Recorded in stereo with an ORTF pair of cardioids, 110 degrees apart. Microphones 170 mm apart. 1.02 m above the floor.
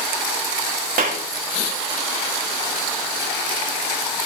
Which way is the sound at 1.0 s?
65° right.